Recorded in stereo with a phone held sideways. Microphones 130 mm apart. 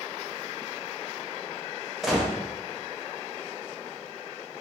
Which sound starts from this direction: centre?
A gunshot, at 2.0 s.